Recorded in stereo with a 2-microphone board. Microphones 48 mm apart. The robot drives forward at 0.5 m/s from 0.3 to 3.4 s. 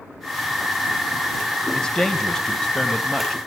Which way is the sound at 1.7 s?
15° left (ahead or behind).